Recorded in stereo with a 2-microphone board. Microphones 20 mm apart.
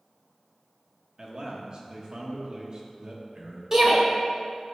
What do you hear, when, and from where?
1.2 s a man speaking: 35° right (ahead or behind), 1.1 m
3.7 s a shout: 25° right (ahead or behind), 1.2 m